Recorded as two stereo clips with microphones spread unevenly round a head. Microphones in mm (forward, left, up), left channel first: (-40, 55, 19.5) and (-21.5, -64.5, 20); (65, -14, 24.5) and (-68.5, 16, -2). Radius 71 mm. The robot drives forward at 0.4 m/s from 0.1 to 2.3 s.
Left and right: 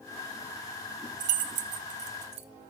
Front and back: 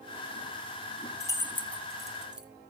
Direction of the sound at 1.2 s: 70° right.